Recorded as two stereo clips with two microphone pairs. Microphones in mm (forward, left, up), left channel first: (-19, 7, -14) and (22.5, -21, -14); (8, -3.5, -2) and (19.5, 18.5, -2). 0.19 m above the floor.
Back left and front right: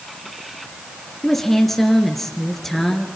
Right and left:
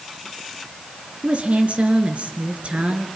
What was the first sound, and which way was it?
A woman speaking, 60° left.